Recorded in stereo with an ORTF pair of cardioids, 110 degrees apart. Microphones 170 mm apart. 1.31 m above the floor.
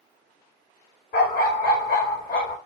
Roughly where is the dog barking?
Left.